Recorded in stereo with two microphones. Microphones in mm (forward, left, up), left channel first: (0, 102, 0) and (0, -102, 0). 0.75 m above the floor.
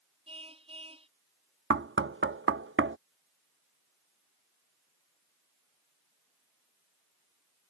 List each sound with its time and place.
0.3 s a car horn: 30° right (ahead or behind)
1.7 s knocking: 75° right (ahead or behind)